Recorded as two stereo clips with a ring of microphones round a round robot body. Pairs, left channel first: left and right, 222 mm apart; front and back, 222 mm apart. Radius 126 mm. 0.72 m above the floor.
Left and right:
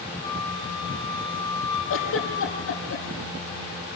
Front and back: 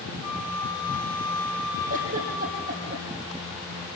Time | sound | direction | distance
0.2 | a flute | 20° left | 4 m
1.9 | a giggle | 120° left | 5.5 m